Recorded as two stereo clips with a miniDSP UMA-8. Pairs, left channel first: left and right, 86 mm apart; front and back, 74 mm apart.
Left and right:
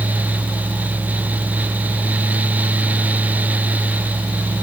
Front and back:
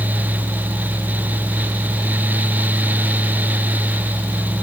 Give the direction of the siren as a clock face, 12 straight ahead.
No siren in this recording.